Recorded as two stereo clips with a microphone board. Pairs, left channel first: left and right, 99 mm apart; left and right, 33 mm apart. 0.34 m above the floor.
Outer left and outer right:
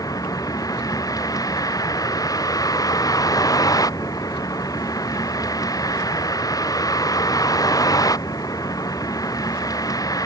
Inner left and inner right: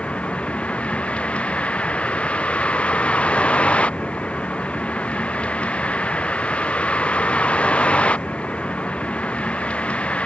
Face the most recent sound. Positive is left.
turn(degrees=40)  # may be behind; listen again after turning